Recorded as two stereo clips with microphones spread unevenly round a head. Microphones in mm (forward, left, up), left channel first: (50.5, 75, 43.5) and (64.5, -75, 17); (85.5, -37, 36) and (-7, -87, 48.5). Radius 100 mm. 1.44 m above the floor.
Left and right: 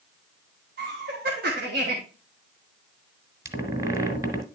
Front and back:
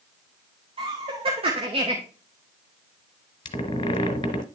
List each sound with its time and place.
0.8 s laughter: 120° right, 1.2 m
3.5 s a squeak: 10° right, 1.9 m